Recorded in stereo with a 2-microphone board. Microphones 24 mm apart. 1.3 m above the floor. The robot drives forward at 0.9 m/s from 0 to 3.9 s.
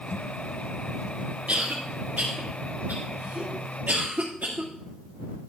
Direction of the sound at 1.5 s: 60° right (ahead or behind).